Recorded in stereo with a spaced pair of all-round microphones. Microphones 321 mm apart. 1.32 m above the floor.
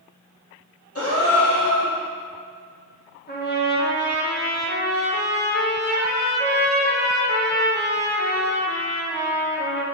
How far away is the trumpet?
About 1.3 m.